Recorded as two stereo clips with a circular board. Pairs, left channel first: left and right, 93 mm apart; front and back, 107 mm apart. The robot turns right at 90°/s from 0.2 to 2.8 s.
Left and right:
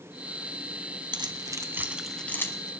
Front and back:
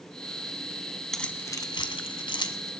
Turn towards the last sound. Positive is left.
turn(degrees=65)